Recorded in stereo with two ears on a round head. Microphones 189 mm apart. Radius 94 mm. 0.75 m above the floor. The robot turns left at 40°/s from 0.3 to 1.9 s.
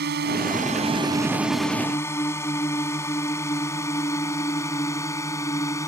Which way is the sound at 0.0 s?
50° right (ahead or behind).